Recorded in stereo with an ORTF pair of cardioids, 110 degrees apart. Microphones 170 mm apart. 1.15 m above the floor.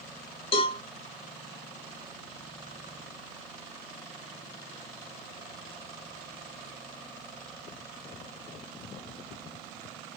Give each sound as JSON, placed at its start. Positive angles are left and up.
{"t": 0.5, "sound": "a cowbell", "azimuth_deg": 30, "distance_m": 1.0}